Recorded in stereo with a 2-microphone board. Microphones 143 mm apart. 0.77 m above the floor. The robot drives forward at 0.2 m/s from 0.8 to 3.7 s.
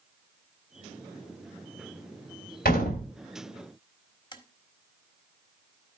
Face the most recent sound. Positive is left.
turn(degrees=30)  # may be behind; listen again after turning